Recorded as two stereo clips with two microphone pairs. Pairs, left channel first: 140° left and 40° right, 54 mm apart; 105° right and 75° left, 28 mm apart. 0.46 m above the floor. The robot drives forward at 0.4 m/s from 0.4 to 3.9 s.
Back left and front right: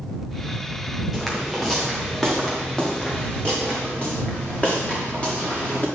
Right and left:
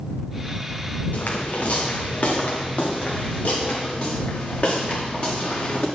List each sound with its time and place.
1.1 s footsteps: 130° right, 3.5 m; by 5.8 s 155° right, 6 m